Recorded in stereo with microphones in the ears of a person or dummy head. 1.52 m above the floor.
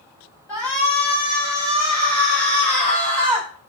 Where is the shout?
20° right (ahead or behind), 8 m.